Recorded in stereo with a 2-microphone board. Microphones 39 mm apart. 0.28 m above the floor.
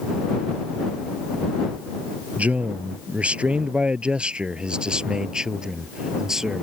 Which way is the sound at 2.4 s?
40° right (ahead or behind).